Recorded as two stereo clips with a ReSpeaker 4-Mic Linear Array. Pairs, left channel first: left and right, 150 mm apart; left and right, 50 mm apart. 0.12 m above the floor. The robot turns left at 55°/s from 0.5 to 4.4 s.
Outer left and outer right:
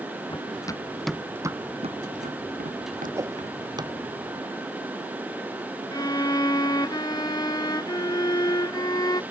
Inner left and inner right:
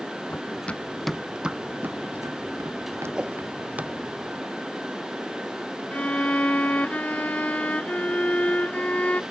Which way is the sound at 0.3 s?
35° left (ahead or behind).